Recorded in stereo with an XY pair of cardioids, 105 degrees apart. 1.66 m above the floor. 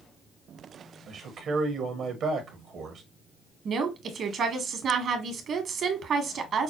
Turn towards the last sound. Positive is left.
turn(degrees=-55)